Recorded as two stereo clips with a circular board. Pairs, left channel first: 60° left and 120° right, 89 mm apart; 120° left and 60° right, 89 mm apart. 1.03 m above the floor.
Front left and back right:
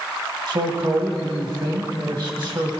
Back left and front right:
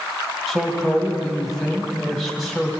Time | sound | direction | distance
0.5 | a man speaking | 145° right | 1.8 m